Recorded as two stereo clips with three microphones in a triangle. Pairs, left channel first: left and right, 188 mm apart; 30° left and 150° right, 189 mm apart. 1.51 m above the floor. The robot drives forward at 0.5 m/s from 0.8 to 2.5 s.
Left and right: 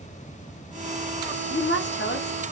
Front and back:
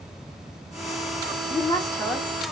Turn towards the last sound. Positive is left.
turn(degrees=120)